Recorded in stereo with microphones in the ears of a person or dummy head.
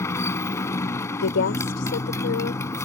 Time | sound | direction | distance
0.0 | a motorcycle | 20° left (ahead or behind) | ?
1.2 | a woman speaking | 70° left (ahead or behind) | ?